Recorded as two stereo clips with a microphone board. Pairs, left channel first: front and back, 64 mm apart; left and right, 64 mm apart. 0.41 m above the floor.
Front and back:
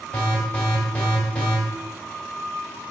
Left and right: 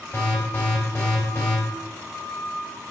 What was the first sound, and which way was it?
An alarm, 65° left.